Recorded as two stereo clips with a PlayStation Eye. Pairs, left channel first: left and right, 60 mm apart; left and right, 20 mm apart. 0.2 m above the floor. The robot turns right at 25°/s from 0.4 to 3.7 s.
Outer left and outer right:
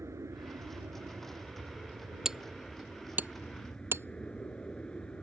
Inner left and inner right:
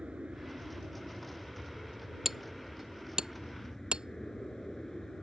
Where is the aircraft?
65° right; by 5.2 s 20° left.